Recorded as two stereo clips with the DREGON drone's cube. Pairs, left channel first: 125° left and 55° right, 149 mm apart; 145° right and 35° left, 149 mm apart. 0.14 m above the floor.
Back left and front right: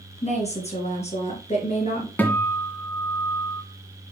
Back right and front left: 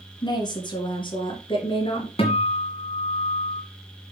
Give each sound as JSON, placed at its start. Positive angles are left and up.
{"t": 0.2, "sound": "a woman speaking", "azimuth_deg": 160, "distance_m": 2.5}
{"t": 2.2, "sound": "a guitar", "azimuth_deg": -160, "distance_m": 2.0}